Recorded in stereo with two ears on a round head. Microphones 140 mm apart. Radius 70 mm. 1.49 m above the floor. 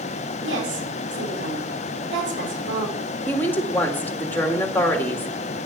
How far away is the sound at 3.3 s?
About 2.5 m.